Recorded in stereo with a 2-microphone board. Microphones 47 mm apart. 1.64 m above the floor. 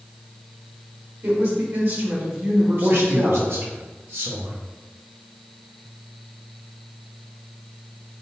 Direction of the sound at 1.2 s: 50° right (ahead or behind).